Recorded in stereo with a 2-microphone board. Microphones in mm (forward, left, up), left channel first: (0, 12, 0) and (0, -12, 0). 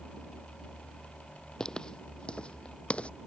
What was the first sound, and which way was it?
Footsteps, 25° left (ahead or behind).